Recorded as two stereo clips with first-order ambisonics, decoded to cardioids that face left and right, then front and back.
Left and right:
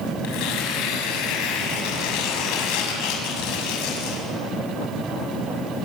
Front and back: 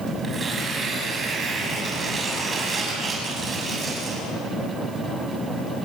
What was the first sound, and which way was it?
Tearing paper, 110° left.